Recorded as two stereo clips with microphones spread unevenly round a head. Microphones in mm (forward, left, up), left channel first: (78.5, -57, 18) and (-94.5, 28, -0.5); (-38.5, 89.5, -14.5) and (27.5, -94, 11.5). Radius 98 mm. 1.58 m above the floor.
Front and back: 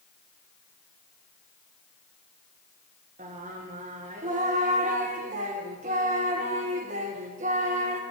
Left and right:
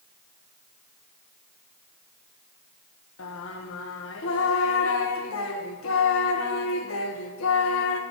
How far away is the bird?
I don't hear a bird.